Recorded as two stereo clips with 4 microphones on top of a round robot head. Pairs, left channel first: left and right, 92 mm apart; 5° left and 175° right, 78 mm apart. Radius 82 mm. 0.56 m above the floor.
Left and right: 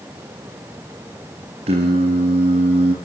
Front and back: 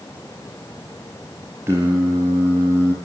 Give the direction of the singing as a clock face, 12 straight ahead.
4 o'clock.